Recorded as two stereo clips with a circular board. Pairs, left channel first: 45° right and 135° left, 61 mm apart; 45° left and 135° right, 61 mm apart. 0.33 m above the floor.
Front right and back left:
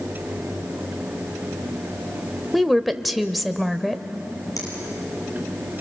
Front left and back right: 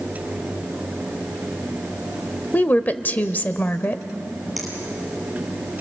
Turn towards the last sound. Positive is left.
turn(degrees=-45)